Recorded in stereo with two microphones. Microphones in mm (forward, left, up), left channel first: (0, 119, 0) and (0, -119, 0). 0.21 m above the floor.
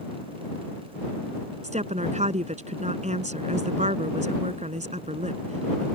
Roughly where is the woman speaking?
Right.